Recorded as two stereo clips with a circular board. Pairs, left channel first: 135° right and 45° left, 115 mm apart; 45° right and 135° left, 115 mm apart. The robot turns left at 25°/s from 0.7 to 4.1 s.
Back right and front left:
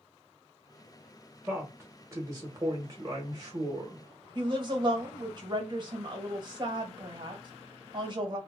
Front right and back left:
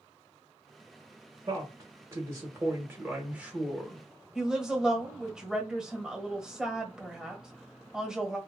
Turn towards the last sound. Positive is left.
turn(degrees=55)